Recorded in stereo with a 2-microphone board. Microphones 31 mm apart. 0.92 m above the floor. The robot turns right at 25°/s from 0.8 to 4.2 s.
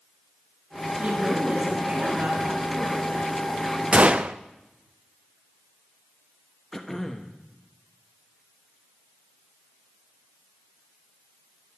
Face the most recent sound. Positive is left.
turn(degrees=10)  # may be behind; listen again after turning